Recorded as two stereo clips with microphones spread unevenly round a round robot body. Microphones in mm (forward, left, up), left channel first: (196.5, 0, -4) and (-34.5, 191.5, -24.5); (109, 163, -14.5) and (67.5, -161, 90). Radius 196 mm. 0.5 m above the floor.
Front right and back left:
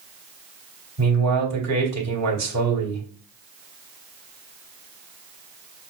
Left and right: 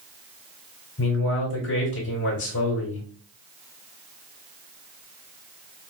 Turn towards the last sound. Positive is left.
turn(degrees=125)